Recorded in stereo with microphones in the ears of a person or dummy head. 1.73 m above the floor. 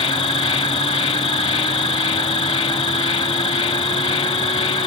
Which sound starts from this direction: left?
An insect, at 0.0 s.